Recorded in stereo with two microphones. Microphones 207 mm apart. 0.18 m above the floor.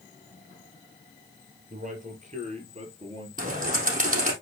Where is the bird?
40° right (ahead or behind), 3.5 m.